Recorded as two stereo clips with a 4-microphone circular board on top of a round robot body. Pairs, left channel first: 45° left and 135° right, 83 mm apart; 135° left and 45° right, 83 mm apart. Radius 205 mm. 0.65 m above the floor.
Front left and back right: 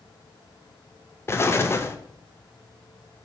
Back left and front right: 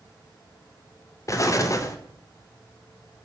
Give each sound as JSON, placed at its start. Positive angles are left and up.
{"t": 1.3, "sound": "an explosion", "azimuth_deg": 95, "distance_m": 0.5}